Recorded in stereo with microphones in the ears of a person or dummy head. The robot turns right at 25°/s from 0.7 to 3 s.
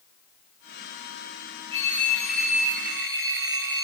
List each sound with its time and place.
1.7 s a phone ringing: 150° right, 4.5 m; by 3.8 s 120° right, 4.5 m